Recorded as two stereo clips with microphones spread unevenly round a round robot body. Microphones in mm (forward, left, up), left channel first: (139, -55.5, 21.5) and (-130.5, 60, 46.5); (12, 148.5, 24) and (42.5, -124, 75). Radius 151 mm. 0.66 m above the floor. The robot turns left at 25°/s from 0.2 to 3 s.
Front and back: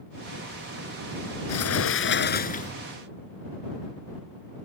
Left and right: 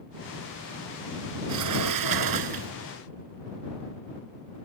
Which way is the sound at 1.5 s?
60° right.